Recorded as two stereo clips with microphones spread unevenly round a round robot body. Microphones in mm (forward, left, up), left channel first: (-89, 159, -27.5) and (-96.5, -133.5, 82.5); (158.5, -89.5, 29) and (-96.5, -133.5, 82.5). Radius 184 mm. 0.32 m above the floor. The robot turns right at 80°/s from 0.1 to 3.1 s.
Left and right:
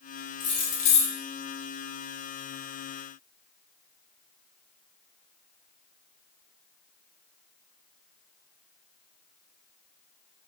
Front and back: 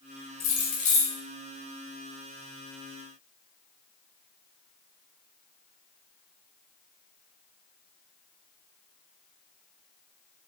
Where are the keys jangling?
30° left, 1.2 m; by 1.1 s 85° left, 1.2 m.